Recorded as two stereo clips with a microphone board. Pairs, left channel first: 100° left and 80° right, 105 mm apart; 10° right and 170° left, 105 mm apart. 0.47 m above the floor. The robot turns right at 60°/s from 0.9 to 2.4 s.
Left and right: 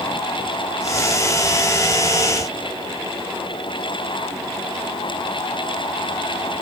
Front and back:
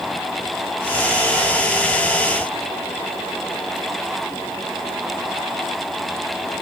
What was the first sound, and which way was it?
Only background noise.